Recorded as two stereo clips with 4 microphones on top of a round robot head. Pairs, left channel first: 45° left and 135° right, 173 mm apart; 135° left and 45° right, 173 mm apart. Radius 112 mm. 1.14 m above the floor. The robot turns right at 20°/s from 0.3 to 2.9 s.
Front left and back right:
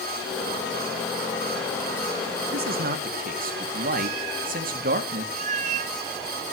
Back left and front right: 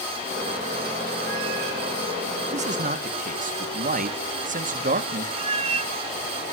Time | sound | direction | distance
2.5 | a man speaking | 100° right | 2.0 m
5.4 | a cat meowing | 90° right | 1.1 m